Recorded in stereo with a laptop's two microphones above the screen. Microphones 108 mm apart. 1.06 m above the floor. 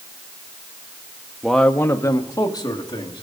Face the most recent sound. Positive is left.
turn(degrees=40)  # may be behind; listen again after turning